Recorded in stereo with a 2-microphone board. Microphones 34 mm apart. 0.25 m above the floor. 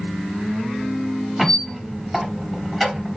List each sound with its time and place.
1.4 s a squeak: centre (ahead or behind), 1.1 m